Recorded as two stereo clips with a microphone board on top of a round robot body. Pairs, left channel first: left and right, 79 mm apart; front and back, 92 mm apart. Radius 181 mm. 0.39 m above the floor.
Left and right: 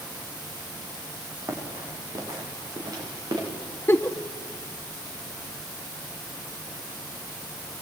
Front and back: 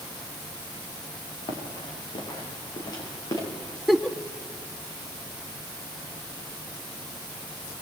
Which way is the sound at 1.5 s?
35° right.